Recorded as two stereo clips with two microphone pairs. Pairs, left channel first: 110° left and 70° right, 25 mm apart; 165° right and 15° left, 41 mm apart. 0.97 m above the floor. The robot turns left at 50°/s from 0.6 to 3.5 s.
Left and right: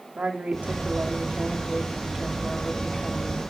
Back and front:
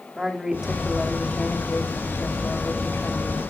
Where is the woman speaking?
65° right, 2.5 m; by 3.4 s 155° left, 2.5 m.